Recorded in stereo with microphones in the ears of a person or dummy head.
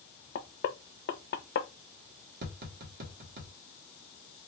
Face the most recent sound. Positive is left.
turn(degrees=-55)  # may be behind; listen again after turning